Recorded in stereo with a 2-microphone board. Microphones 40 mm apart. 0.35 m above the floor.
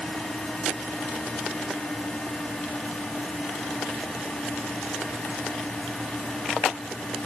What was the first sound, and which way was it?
Only background noise.